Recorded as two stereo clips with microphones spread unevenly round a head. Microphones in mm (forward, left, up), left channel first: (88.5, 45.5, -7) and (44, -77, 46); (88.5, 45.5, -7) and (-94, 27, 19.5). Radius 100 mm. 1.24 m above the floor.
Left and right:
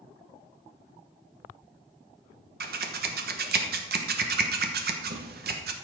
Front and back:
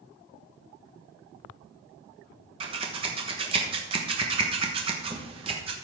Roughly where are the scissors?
Right.